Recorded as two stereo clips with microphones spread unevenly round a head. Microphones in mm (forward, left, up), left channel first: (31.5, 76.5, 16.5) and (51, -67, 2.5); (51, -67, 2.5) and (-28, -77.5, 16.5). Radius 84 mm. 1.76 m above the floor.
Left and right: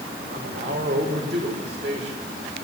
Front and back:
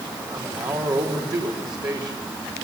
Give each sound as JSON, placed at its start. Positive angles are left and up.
{"t": 0.3, "sound": "a man speaking", "azimuth_deg": -140, "distance_m": 6.0}